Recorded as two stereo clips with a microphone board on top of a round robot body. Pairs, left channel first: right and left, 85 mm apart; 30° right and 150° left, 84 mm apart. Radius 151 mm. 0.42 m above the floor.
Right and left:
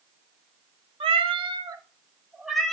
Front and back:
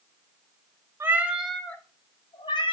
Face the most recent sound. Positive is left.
turn(degrees=-5)